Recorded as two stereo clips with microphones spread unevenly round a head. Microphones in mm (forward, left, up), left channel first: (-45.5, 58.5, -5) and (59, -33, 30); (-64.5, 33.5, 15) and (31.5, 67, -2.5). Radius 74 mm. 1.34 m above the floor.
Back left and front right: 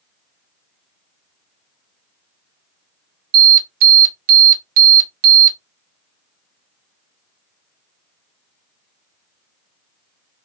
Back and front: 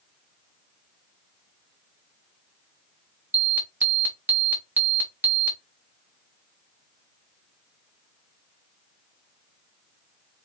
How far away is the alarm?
About 0.9 m.